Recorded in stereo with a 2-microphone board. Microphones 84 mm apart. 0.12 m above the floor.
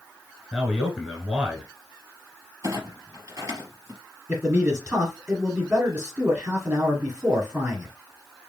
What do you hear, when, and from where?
0.5 s a man speaking: 10° right (ahead or behind), 1.2 m
2.6 s a clunk: 35° right (ahead or behind), 2.5 m
4.3 s a man speaking: 20° right (ahead or behind), 1.4 m